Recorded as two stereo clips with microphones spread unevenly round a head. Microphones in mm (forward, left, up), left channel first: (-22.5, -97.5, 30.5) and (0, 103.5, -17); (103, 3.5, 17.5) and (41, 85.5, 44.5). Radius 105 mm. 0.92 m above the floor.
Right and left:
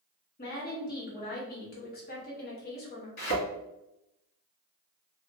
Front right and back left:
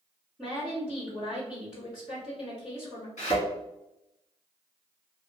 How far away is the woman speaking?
About 1.3 m.